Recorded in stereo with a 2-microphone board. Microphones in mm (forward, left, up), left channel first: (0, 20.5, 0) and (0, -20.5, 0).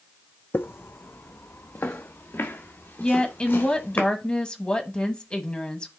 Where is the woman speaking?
25° left (ahead or behind), 1.1 m.